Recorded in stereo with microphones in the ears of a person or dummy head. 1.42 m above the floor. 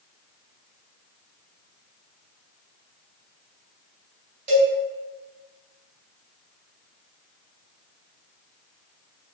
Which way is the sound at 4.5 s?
40° right (ahead or behind).